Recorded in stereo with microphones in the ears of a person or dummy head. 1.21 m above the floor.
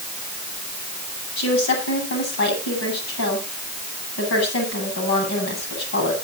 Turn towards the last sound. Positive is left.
turn(degrees=65)  # may be behind; listen again after turning